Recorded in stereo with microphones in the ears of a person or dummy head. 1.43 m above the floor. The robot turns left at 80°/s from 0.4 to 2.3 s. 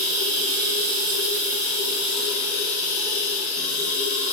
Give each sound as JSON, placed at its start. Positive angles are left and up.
{"t": 0.0, "sound": "running water", "azimuth_deg": -40, "distance_m": 2.5}